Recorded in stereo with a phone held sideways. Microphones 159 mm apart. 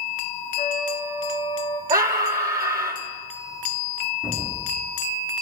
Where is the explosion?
75° left (ahead or behind), 6.5 m.